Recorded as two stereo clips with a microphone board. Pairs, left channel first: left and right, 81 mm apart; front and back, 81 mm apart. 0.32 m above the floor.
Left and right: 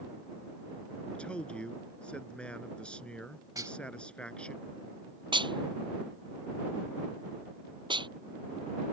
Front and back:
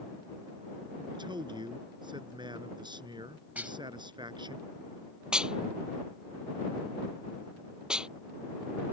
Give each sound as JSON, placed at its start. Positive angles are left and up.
{"t": 1.1, "sound": "a man speaking", "azimuth_deg": 165}
{"t": 3.5, "sound": "dishes clattering", "azimuth_deg": -115}
{"t": 5.3, "sound": "dishes clattering", "azimuth_deg": -100}